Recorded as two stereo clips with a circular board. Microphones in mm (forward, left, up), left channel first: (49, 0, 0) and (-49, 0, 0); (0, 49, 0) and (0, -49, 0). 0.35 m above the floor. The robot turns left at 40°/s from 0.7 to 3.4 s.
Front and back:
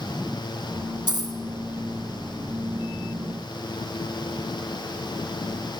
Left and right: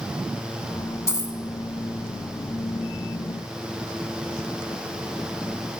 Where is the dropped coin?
150° left, 1.3 m; by 1.4 s 135° left, 1.3 m.